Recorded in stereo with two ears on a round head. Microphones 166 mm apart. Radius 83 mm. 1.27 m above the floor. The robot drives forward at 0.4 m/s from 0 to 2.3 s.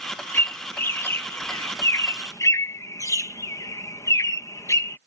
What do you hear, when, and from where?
0.3 s a bird: 10° left (ahead or behind); by 5.0 s 20° left (ahead or behind)